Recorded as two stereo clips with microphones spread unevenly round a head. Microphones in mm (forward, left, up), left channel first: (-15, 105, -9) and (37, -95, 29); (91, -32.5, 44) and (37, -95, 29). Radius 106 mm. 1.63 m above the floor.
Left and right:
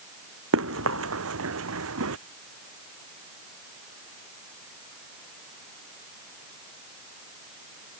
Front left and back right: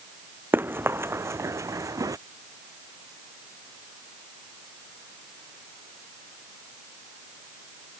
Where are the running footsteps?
65° right; by 2.2 s 85° right.